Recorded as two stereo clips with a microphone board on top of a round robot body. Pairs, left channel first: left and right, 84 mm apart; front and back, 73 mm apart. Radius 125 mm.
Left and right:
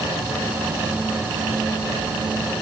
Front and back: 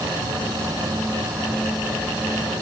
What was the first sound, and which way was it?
Only background noise.